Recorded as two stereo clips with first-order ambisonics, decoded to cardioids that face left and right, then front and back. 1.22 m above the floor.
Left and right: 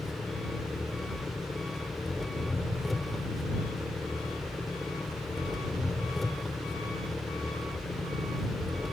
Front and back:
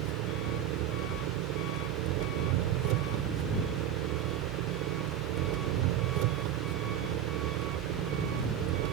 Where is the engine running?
170° left.